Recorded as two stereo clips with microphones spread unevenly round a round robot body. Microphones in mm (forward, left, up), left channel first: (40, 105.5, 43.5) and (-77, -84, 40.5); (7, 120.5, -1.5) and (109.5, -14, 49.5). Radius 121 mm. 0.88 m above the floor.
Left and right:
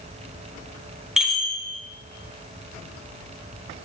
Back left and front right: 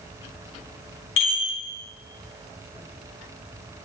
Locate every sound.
1.2 s a chime: 150° left, 1.1 m